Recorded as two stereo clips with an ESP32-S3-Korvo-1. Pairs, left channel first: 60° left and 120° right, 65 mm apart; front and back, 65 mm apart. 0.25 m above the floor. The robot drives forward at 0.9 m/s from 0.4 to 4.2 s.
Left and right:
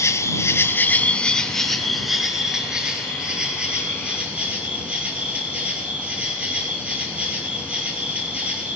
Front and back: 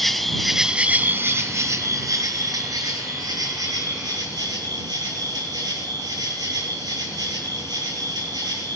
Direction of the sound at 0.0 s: 85° left.